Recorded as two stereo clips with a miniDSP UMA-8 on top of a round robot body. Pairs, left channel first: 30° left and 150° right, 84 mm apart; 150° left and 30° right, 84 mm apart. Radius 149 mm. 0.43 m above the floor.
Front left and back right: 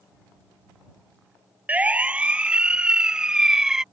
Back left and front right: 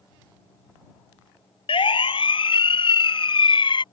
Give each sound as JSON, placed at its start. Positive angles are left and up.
{"t": 1.7, "sound": "a siren", "azimuth_deg": 135}